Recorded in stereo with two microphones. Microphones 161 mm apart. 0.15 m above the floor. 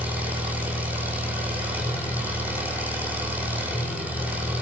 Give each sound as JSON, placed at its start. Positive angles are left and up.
{"t": 0.0, "sound": "an engine running", "side_deg": -10, "distance_m": 7.5}